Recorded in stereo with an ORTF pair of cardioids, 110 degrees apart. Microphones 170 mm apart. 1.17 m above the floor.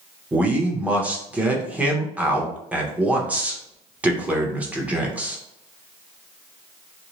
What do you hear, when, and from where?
0.3 s a man speaking: 10° right, 0.8 m